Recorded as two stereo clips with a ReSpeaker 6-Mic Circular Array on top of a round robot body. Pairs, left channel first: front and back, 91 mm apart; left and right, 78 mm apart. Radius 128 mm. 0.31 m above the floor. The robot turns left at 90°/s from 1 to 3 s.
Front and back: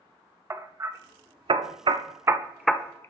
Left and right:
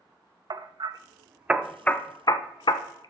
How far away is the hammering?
About 0.8 m.